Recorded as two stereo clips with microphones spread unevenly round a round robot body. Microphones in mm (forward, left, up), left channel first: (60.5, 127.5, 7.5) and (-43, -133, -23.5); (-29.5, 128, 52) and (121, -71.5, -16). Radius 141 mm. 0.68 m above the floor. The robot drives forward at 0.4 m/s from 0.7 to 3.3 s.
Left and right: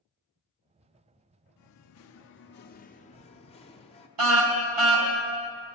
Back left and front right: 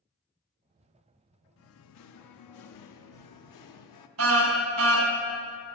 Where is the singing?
90° left, 0.7 m; by 4.1 s 140° left, 0.9 m.